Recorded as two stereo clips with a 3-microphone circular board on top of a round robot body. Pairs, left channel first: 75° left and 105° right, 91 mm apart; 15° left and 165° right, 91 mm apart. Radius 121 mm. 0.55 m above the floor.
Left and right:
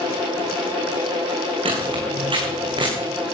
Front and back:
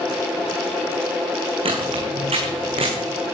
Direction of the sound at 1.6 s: 135° right.